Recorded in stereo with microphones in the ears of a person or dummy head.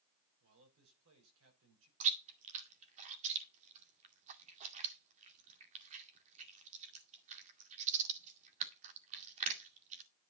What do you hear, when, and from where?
0.4 s a man speaking: 80° right, 7.5 m
2.0 s chewing: 40° right (ahead or behind), 1.9 m